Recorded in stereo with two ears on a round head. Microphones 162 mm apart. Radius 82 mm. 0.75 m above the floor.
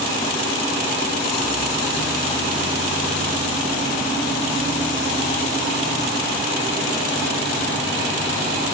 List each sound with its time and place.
Only background noise.